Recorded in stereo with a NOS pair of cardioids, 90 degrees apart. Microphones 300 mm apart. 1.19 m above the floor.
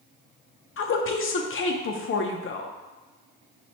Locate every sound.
0.8 s a woman speaking: 45° left, 0.7 m